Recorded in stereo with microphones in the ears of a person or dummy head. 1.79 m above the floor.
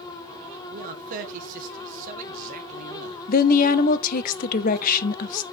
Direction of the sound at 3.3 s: 45° left (ahead or behind).